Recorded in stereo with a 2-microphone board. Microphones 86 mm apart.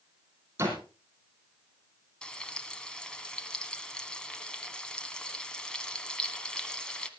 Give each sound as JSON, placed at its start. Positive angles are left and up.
{"t": 0.6, "sound": "a door slam", "side_deg": -30, "distance_m": 4.5}
{"t": 2.2, "sound": "frying", "side_deg": 10, "distance_m": 1.5}